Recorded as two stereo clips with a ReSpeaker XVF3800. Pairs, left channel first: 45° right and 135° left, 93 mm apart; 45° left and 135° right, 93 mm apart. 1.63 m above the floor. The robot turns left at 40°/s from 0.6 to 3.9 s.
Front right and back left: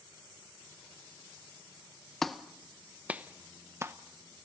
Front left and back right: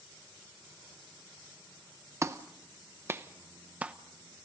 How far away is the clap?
About 0.8 m.